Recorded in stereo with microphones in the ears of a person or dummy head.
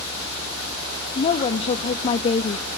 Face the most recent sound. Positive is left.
turn(degrees=30)  # may be behind; listen again after turning